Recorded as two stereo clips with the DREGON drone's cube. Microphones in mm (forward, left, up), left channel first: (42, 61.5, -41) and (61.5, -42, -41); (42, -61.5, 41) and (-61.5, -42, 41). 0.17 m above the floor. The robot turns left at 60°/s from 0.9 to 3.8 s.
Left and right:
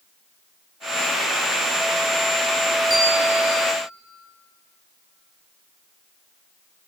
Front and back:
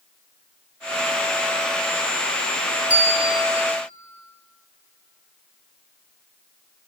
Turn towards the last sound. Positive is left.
turn(degrees=-170)